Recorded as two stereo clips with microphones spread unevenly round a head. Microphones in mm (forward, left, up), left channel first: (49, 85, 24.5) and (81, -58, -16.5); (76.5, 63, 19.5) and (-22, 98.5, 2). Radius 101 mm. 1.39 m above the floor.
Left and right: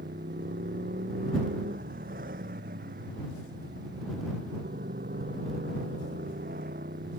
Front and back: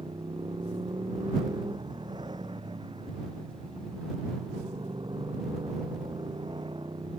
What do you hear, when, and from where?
0.0 s a motorcycle: 130° right